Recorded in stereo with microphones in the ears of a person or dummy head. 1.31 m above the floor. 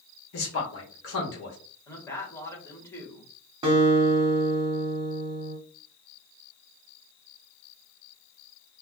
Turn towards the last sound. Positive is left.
turn(degrees=-30)  # may be behind; listen again after turning